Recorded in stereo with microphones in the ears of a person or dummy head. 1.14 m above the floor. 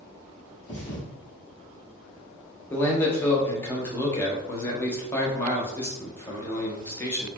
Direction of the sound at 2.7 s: 15° left (ahead or behind).